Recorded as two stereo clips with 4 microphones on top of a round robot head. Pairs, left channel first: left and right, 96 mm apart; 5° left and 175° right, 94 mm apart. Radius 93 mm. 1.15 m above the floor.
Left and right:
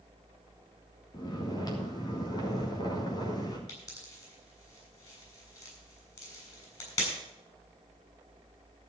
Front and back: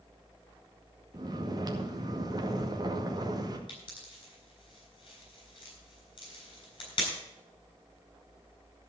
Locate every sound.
1.1 s snoring: 140° left, 2 m
3.7 s a pop: 40° left, 7 m